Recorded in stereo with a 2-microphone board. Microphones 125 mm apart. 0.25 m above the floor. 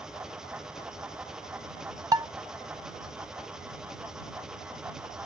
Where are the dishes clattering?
30° right (ahead or behind).